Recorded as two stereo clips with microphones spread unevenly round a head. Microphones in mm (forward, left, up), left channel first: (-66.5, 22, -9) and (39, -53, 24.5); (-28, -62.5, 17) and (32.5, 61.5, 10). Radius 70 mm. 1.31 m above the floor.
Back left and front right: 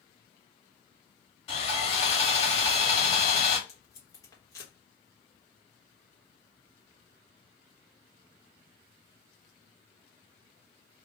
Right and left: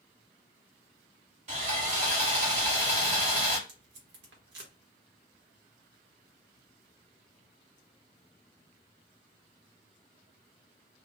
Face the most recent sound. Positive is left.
turn(degrees=75)